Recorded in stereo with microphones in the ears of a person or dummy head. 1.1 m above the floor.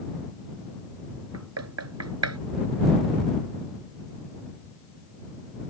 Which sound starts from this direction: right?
Knocking, at 1.3 s.